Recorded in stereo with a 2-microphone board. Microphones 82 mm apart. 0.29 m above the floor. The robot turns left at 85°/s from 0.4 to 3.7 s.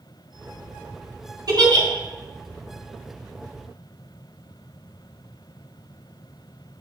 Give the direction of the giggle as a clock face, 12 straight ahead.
2 o'clock.